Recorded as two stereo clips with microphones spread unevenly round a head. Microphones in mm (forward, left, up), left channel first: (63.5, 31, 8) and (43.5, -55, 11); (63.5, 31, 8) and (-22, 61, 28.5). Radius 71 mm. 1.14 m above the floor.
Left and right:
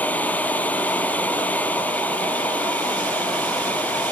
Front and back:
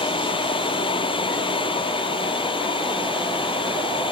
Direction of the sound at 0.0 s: 5° left.